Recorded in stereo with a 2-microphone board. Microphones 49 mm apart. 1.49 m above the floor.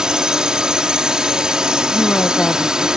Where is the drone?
10° right (ahead or behind).